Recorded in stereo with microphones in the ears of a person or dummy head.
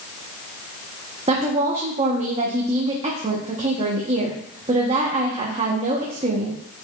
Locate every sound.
1.3 s a woman speaking: 25° right (ahead or behind), 1.0 m